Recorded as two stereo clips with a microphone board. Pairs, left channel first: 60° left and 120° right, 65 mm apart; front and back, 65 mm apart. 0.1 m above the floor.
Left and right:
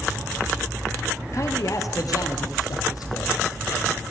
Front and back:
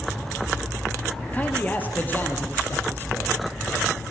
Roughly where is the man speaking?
Ahead left.